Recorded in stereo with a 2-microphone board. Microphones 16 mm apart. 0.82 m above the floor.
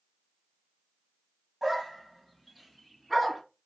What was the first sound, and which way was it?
A dog barking, 5° right (ahead or behind).